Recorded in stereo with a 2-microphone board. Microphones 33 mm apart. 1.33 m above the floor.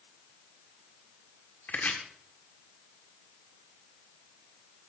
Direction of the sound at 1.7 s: 55° left (ahead or behind).